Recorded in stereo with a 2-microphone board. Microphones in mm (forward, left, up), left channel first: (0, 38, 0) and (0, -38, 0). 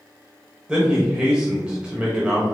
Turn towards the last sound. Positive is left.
turn(degrees=-15)  # may be behind; listen again after turning